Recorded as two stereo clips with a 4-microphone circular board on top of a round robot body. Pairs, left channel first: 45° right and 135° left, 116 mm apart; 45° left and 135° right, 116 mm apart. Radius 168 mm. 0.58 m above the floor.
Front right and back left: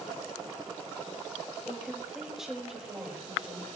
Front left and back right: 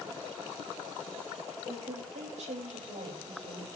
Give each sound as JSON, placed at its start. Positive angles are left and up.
{"t": 1.7, "sound": "a woman speaking", "azimuth_deg": -140, "distance_m": 4.0}